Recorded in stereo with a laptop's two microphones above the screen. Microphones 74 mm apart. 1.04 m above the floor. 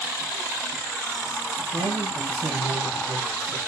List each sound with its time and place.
1.7 s a man speaking: 60° right (ahead or behind), 1.4 m